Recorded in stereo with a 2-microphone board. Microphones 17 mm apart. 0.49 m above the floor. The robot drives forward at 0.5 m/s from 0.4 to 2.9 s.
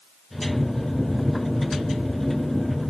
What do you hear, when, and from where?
Only background noise.